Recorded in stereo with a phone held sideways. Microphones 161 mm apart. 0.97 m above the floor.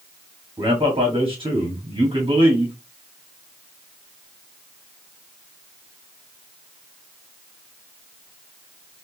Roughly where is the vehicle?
I don't hear a vehicle.